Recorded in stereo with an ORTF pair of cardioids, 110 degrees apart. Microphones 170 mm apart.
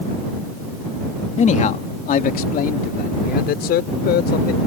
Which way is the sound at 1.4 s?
45° left.